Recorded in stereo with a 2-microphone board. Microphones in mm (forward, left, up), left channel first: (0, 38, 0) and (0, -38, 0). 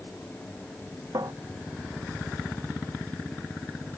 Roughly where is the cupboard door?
Right.